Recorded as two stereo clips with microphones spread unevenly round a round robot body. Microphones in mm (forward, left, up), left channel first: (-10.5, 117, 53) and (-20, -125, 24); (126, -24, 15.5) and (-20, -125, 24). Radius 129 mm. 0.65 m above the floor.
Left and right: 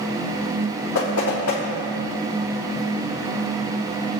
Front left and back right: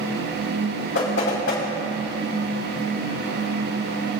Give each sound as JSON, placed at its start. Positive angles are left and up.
{"t": 0.9, "sound": "knocking", "azimuth_deg": 60, "distance_m": 4.0}